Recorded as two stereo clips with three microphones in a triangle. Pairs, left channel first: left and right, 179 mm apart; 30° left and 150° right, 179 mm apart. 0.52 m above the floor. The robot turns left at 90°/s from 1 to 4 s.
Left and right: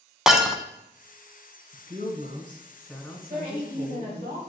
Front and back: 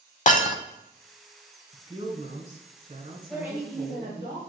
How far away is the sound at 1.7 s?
About 1.9 m.